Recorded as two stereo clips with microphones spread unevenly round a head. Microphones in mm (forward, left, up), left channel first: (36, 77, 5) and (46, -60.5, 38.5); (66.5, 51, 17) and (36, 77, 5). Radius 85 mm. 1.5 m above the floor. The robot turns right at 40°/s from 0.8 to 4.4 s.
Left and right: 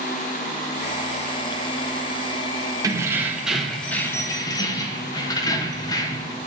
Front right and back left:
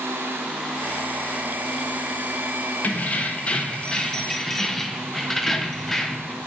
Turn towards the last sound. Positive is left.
turn(degrees=25)